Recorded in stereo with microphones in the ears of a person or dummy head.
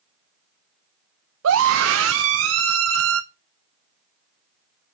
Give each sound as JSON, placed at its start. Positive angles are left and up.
{"t": 1.4, "sound": "a scream", "side_deg": -80, "distance_m": 0.8}